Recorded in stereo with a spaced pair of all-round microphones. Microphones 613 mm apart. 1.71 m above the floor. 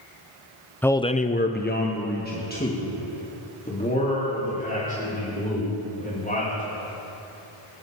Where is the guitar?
No guitar in this recording.